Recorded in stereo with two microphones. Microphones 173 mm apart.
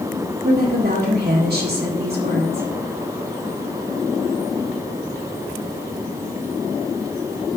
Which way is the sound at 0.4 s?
70° right (ahead or behind).